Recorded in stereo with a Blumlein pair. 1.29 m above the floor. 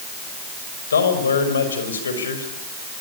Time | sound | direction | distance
0.9 | a man speaking | 70° left | 5.5 m